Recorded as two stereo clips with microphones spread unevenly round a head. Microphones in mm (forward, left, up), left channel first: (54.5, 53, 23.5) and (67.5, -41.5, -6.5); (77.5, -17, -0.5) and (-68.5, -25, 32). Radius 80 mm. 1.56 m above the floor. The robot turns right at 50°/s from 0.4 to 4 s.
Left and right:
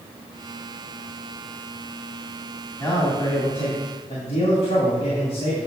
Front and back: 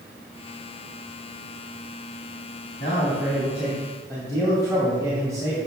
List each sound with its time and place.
2.8 s a man speaking: 50° left, 2.5 m; by 5.7 s 110° left, 2.5 m